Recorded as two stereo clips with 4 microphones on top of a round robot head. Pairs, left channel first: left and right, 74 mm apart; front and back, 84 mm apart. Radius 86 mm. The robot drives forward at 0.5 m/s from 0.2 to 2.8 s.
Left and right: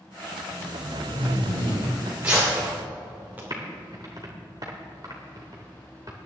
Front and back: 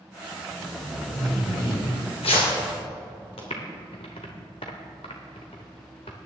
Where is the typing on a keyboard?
30° right, 1.0 m.